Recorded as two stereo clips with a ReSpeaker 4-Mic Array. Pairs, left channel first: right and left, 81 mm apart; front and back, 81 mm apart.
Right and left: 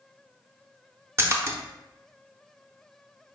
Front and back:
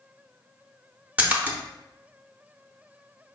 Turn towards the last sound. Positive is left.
turn(degrees=120)